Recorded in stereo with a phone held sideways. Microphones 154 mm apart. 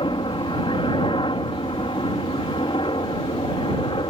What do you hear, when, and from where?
0.0 s a helicopter: 35° left (ahead or behind)